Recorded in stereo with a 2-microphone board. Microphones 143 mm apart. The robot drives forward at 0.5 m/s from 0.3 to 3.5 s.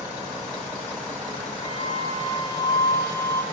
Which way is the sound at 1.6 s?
40° left (ahead or behind).